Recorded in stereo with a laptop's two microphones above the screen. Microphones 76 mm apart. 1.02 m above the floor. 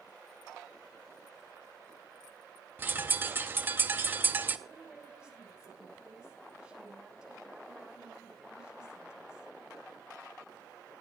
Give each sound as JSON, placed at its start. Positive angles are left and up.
{"t": 2.8, "sound": "a bird", "side_deg": -25, "distance_m": 0.6}
{"t": 4.7, "sound": "a woman speaking", "side_deg": -10, "distance_m": 6.5}